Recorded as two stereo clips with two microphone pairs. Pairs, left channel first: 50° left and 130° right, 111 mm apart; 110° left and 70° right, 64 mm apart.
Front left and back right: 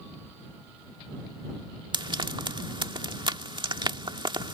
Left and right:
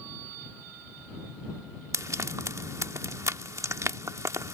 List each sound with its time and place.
1.9 s frying: 95° right